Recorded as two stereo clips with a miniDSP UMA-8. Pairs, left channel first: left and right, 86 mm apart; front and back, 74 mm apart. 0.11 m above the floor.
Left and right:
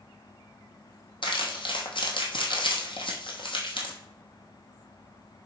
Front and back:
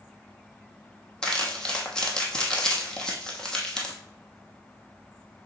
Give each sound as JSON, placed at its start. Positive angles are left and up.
{"t": 1.2, "sound": "crumpling", "azimuth_deg": 80, "distance_m": 1.4}